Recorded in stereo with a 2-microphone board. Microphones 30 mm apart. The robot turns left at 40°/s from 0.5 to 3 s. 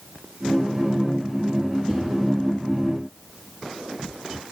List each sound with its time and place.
1.9 s a whoosh: 30° left (ahead or behind), 4.5 m; by 2.0 s 40° left (ahead or behind), 4.5 m